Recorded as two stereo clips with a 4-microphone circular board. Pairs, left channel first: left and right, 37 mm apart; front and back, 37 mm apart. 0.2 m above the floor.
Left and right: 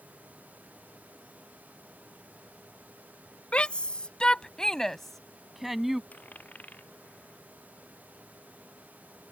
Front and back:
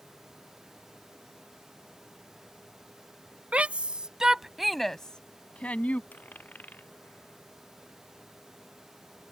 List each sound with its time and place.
3.5 s a shout: 140° left; by 6.0 s 10° right
6.1 s a dropped coin: 45° left